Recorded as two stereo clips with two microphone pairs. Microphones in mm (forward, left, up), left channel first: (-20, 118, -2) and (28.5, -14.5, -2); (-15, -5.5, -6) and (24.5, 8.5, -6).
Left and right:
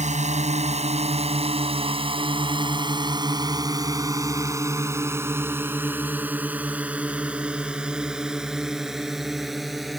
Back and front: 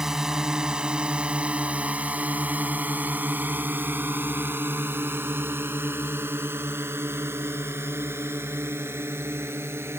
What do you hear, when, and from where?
0.0 s a drone: 55° right; by 10.0 s 20° left